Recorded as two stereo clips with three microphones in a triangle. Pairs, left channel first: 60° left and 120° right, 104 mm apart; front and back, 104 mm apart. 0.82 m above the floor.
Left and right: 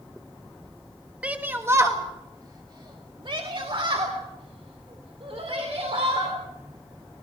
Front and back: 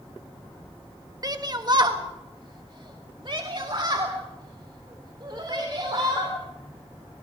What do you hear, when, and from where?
1.2 s a shout: 170° left, 1.2 m; by 6.3 s 135° right, 3.5 m